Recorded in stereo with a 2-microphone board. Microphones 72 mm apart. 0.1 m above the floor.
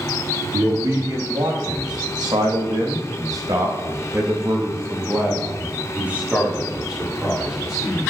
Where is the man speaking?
65° right (ahead or behind), 6 m; by 8.0 s 5° right (ahead or behind), 8 m.